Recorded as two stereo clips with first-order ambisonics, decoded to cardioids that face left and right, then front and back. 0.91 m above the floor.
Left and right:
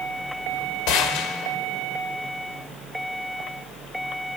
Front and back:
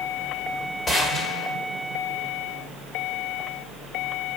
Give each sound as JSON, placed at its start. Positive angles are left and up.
{"t": 0.9, "sound": "a gunshot", "azimuth_deg": 70, "distance_m": 1.3}